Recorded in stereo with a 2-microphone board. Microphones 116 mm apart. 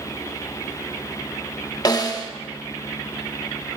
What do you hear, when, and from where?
1.9 s a snare drum: 35° left (ahead or behind), 0.7 m